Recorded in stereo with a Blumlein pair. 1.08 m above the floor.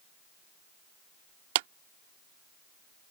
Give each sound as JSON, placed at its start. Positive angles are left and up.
{"t": 1.6, "sound": "a clap", "azimuth_deg": -50}